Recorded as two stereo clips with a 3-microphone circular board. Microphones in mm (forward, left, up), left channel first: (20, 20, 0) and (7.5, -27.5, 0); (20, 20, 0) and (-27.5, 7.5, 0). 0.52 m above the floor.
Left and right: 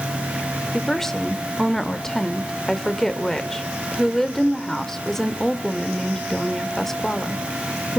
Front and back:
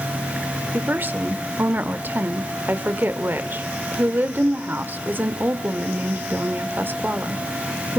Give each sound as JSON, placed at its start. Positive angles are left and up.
{"t": 0.7, "sound": "a woman speaking", "azimuth_deg": 155, "distance_m": 1.4}